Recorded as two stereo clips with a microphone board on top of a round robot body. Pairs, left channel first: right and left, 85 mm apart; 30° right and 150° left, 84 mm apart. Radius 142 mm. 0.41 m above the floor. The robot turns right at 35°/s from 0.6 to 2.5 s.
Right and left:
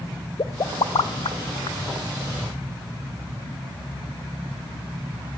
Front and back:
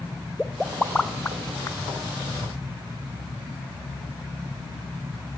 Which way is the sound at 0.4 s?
125° right.